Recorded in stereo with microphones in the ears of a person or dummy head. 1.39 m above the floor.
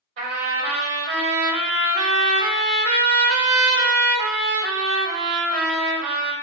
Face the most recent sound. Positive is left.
turn(degrees=-55)  # may be behind; listen again after turning